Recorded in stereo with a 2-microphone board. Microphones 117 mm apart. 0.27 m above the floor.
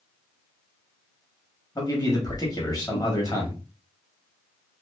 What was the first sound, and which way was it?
A man speaking, 35° left (ahead or behind).